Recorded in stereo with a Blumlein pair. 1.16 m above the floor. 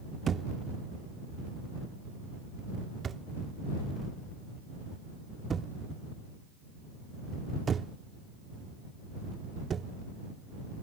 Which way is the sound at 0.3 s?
20° right.